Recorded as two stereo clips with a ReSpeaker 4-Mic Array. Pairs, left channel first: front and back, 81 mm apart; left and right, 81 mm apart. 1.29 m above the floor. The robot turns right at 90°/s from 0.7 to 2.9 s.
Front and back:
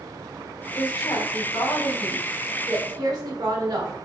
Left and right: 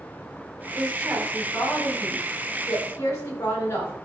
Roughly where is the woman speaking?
Ahead right.